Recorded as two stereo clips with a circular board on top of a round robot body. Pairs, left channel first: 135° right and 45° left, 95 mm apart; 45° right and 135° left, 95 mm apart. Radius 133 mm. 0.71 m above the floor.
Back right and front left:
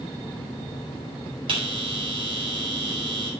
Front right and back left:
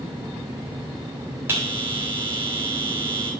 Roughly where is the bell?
Left.